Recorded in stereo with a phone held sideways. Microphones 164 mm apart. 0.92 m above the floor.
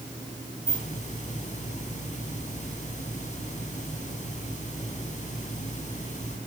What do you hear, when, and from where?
0.7 s a hiss: 45° left (ahead or behind), 5 m